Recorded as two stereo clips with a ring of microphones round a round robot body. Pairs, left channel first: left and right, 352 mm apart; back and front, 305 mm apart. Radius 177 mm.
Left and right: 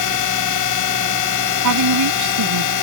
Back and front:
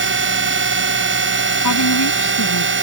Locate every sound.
0.0 s a drone: 50° left
1.6 s a woman speaking: 130° right